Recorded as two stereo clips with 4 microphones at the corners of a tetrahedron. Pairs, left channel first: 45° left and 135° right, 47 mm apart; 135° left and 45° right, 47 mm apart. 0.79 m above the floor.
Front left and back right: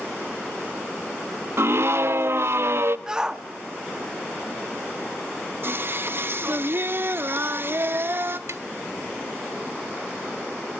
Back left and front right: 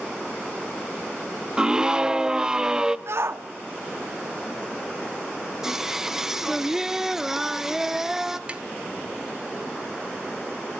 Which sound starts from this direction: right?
Tapping, at 8.5 s.